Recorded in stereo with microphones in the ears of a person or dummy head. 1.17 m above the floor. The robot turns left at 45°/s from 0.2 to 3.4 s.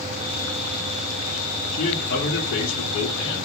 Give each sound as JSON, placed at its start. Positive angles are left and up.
{"t": 1.7, "sound": "a man speaking", "azimuth_deg": 140, "distance_m": 1.7}